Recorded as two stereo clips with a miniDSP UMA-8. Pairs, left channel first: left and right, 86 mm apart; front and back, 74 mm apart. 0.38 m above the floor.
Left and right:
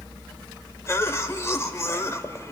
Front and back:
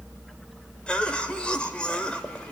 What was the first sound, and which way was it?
A cough, 65° left.